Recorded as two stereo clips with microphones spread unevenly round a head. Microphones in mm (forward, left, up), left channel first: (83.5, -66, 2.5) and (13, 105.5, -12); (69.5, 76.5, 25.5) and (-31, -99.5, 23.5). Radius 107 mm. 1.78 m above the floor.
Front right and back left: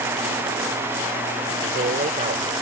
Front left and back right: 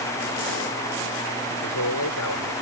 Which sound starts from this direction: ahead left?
A man speaking, at 1.6 s.